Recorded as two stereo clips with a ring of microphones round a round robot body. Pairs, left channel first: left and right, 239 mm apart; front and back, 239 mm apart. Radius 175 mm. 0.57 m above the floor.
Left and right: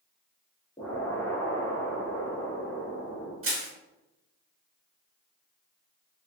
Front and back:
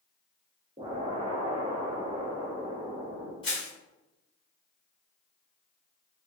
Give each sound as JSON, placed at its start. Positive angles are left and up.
{"t": 0.8, "sound": "an explosion", "azimuth_deg": 155, "distance_m": 1.1}
{"t": 3.4, "sound": "crushing", "azimuth_deg": -70, "distance_m": 1.6}